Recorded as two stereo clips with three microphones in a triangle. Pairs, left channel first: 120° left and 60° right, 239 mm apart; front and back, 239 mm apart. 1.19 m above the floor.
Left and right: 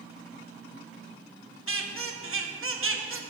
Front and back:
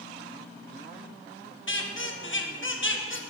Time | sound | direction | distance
1.7 | a squeak | 35° right | 0.9 m